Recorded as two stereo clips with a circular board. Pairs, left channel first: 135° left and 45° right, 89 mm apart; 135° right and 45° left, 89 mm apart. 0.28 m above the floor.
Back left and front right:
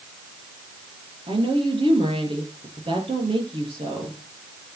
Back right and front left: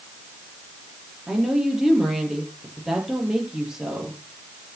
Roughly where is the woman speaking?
Ahead right.